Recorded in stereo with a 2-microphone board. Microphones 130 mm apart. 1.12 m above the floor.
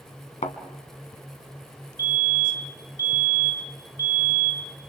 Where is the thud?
65° left (ahead or behind), 2.0 m.